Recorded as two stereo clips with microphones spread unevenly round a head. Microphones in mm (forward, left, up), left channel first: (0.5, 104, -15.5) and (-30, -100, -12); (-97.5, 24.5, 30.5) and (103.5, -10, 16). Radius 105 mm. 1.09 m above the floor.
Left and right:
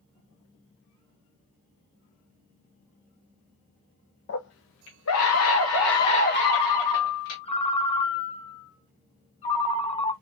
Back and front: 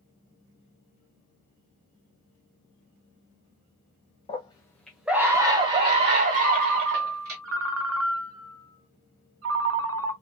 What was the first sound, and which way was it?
A scream, 110° left.